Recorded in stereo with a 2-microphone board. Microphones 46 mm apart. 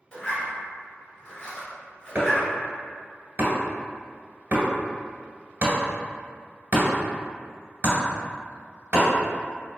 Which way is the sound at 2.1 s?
35° right (ahead or behind).